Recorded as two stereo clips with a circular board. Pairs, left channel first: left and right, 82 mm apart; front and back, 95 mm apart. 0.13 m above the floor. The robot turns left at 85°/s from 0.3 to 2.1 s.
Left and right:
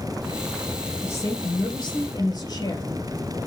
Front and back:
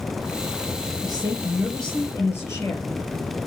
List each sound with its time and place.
1.0 s a woman speaking: 150° left, 3 m; by 2.9 s 55° left, 3 m